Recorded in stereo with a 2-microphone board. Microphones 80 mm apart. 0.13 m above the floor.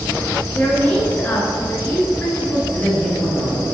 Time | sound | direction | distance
0.5 | a woman speaking | 20° left (ahead or behind) | 1.3 m
2.7 | a man speaking | 15° left (ahead or behind) | 1.9 m